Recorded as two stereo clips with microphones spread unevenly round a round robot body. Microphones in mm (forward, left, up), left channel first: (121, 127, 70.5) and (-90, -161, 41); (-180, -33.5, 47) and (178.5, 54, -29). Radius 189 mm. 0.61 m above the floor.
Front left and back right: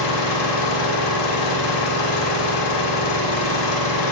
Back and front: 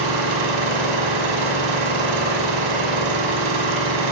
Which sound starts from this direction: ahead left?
An engine running, at 0.0 s.